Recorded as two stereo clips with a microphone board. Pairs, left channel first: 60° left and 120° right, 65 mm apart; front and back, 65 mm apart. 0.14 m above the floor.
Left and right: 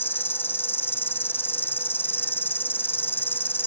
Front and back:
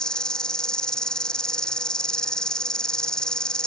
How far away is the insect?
About 0.8 m.